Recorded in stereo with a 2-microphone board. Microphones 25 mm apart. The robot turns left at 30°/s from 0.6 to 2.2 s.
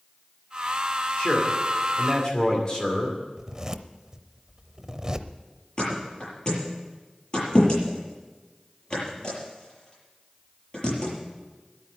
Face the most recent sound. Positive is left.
turn(degrees=40)  # may be behind; listen again after turning